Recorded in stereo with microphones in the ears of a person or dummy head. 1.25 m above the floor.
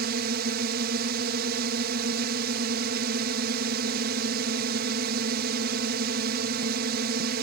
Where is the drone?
55° right (ahead or behind).